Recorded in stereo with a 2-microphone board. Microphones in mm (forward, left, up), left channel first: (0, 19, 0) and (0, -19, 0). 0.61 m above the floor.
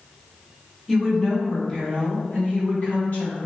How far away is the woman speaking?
About 1.3 m.